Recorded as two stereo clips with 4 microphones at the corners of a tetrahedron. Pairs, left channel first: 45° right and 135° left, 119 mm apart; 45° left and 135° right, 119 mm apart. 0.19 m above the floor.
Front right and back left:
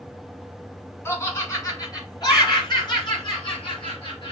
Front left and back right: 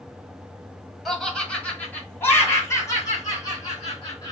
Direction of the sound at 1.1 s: 40° right.